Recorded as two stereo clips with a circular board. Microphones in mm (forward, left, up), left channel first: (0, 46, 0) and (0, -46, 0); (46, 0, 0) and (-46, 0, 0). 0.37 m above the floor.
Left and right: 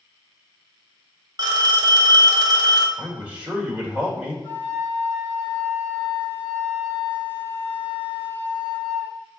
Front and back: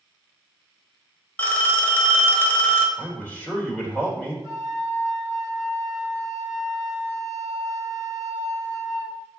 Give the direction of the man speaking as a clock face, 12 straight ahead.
1 o'clock.